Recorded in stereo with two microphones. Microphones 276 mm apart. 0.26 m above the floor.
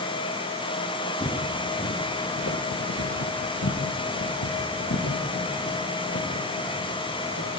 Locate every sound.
1.2 s footsteps: 20° left (ahead or behind), 2.5 m; by 7.5 s 55° left (ahead or behind), 6 m